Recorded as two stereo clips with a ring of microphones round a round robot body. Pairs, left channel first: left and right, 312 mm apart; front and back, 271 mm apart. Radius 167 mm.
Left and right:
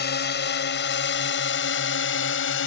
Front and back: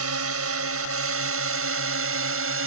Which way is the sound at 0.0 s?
150° left.